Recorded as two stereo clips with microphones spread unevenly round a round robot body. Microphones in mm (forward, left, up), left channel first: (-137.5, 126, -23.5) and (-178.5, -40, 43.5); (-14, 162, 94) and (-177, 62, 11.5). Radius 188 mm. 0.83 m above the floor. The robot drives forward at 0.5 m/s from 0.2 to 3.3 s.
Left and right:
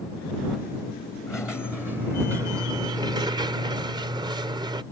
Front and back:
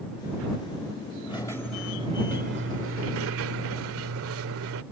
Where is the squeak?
25° right; by 4.8 s 135° right.